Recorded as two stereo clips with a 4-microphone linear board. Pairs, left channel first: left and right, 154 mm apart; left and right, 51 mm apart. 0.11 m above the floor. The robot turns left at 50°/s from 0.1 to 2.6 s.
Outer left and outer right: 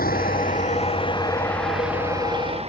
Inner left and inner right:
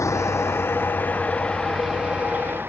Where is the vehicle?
70° left (ahead or behind); by 2.7 s 40° right (ahead or behind).